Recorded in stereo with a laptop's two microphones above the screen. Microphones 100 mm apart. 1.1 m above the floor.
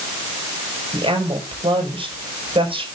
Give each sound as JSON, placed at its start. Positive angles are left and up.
{"t": 0.9, "sound": "a woman speaking", "side_deg": -65, "distance_m": 6.0}